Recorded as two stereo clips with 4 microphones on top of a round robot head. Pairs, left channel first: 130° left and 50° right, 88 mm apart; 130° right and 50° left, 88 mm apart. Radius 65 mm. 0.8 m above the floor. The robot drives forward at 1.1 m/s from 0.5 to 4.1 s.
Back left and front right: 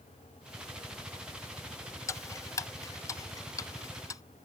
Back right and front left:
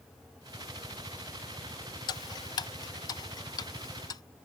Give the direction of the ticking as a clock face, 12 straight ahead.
6 o'clock.